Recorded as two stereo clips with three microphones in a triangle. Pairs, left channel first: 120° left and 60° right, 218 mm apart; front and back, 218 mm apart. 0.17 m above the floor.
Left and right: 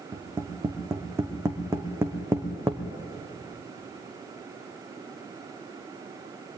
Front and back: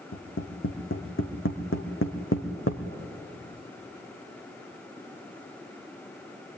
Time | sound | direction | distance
0.1 | tapping | 20° left | 2.5 m